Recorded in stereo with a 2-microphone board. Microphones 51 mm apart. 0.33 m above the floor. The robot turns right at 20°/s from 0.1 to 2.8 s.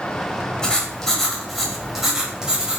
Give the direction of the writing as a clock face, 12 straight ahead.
7 o'clock.